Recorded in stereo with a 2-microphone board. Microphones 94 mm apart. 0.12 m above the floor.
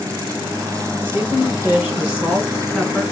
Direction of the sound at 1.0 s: 25° right (ahead or behind).